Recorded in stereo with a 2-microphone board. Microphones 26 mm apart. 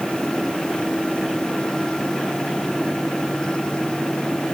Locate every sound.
Only background noise.